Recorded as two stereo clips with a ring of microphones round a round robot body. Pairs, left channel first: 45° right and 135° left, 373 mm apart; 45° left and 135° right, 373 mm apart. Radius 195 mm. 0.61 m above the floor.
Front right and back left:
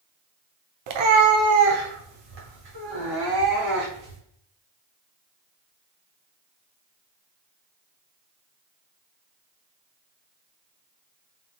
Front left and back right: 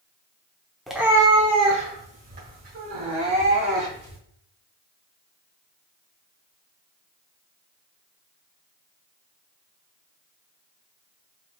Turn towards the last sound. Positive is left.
turn(degrees=160)